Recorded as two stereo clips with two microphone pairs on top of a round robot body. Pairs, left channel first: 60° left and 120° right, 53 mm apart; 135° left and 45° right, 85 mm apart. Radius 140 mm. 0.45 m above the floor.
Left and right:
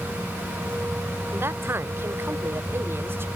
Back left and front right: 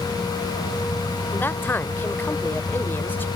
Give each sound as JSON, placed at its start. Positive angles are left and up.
{"t": 1.3, "sound": "a man speaking", "azimuth_deg": -160}